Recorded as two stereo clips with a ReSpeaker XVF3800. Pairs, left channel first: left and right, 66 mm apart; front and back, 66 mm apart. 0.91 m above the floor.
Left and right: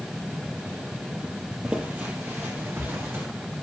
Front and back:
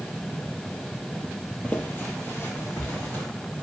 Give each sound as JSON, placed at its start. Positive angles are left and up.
{"t": 1.6, "sound": "footsteps", "azimuth_deg": -30, "distance_m": 0.9}